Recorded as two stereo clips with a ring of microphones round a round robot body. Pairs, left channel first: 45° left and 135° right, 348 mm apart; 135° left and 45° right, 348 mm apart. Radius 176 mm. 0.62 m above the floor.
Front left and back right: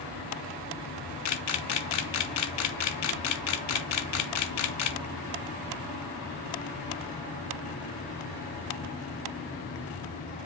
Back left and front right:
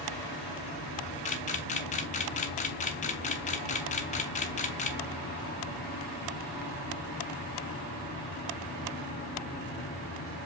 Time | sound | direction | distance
1.2 | a camera shutter | 70° left | 0.6 m